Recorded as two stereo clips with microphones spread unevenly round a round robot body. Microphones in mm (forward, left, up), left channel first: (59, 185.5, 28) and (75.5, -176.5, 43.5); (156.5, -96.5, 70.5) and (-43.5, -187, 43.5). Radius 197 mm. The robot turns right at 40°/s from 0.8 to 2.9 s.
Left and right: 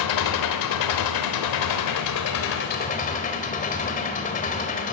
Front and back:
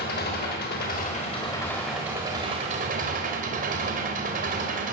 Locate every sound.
0.0 s an engine running: 75° left, 1.1 m; by 5.0 s 160° left, 1.1 m